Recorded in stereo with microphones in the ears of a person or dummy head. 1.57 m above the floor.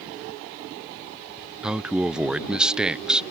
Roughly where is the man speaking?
Centre.